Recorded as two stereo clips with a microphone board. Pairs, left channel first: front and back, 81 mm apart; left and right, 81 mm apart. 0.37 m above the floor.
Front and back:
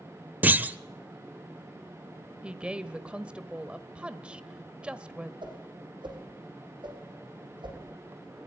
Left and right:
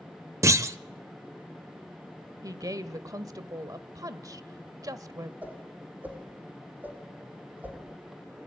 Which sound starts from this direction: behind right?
A clunk, at 0.4 s.